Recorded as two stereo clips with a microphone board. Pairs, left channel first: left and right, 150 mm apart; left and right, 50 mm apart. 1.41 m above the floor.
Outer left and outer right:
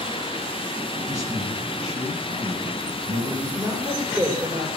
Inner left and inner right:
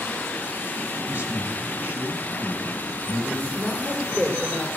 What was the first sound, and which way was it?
A man speaking, 45° right (ahead or behind).